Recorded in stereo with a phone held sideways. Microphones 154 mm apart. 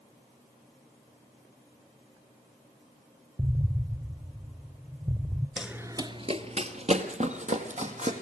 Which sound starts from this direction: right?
An explosion, at 3.4 s.